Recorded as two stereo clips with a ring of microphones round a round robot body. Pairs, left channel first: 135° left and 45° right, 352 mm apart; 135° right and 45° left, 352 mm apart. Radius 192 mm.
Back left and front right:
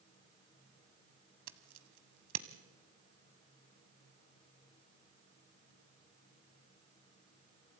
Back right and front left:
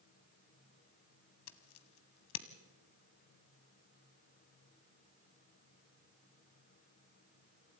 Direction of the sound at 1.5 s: 90° right.